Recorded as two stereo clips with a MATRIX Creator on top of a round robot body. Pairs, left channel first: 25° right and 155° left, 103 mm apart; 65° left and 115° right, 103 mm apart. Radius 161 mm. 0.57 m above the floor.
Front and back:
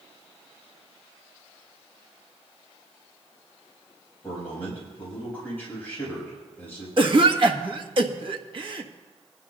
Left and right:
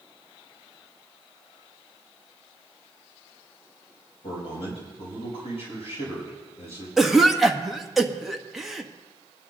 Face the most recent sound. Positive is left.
turn(degrees=160)